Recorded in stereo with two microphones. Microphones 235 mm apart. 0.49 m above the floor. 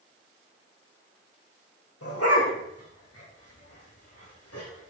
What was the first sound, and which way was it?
A dog barking, 80° left.